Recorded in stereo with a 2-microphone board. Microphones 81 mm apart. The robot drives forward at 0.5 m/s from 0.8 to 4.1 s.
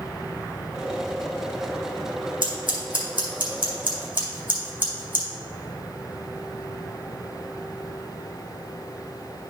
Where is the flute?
No flute in this recording.